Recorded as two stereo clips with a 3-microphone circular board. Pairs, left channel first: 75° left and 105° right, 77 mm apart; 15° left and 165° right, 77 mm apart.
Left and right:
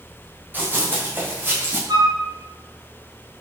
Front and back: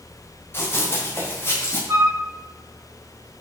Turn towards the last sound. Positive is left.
turn(degrees=-120)